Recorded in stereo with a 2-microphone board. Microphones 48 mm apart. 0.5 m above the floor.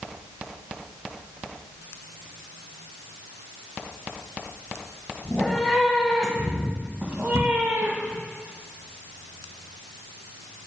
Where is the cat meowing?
20° left (ahead or behind), 1.6 m; by 8.2 s 55° right (ahead or behind), 2 m.